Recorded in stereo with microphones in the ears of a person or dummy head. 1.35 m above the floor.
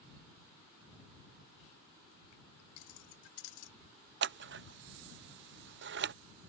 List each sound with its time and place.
2.8 s keys jangling: 75° left (ahead or behind)
4.2 s scissors: 50° right (ahead or behind)